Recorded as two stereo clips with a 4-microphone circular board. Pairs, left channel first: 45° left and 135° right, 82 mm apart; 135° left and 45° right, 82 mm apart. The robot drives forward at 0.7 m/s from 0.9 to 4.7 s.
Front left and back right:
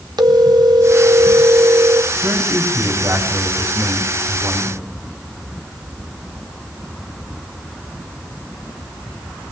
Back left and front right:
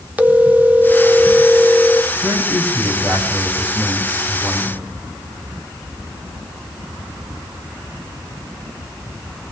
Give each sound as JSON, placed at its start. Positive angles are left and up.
{"t": 0.2, "sound": "a phone ringing", "azimuth_deg": -110, "distance_m": 0.7}
{"t": 2.2, "sound": "a man speaking", "azimuth_deg": -95, "distance_m": 4.0}